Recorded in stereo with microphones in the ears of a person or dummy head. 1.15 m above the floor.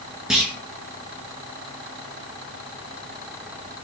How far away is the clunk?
About 0.8 m.